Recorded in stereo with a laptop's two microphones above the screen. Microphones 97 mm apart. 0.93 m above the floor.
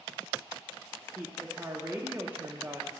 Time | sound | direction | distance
1.1 | a woman speaking | 20° right (ahead or behind) | 0.9 m